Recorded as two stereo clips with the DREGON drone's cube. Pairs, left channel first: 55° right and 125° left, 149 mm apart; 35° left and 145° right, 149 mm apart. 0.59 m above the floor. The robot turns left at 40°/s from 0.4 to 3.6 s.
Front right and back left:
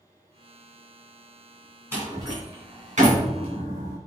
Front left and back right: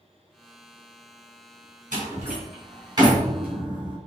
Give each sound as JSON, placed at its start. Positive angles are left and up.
{"t": 1.9, "sound": "a door slam", "azimuth_deg": -165, "distance_m": 4.0}